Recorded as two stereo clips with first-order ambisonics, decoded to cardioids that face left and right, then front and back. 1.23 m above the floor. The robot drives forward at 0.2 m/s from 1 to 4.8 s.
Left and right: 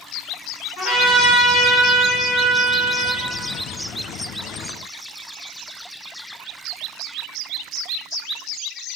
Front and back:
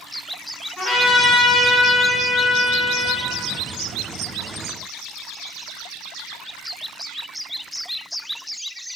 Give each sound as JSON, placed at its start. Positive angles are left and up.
{"t": 0.8, "sound": "a trumpet", "azimuth_deg": 75, "distance_m": 1.9}